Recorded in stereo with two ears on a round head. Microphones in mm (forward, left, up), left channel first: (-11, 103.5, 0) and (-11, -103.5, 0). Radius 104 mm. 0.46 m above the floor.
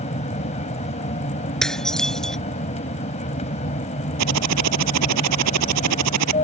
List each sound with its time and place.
0.0 s an aircraft: 30° left (ahead or behind)
1.6 s dishes clattering: centre (ahead or behind)
4.2 s typing on a keyboard: 85° right